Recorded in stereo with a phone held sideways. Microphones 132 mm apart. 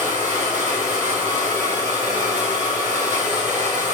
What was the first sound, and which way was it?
A machine running, 60° right (ahead or behind).